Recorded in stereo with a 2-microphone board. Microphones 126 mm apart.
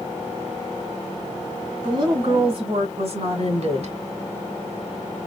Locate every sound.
1.8 s a woman speaking: 35° right (ahead or behind), 2 m; by 4.0 s 60° right (ahead or behind), 1.8 m